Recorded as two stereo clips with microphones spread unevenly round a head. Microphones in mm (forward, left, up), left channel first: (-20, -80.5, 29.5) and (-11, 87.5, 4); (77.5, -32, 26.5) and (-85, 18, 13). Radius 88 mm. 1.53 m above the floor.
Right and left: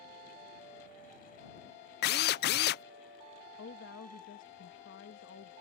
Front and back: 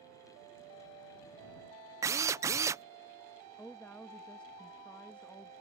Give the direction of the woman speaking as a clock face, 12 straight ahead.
3 o'clock.